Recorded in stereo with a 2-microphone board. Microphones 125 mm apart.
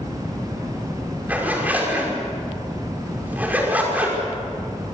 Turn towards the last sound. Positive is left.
turn(degrees=-15)  # may be behind; listen again after turning